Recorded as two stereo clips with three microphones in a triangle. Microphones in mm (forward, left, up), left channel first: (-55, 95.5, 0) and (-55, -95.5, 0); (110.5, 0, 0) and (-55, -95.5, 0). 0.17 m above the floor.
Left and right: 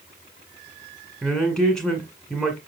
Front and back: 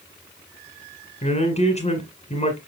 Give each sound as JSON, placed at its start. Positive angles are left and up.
{"t": 1.2, "sound": "a man speaking", "azimuth_deg": 5, "distance_m": 1.6}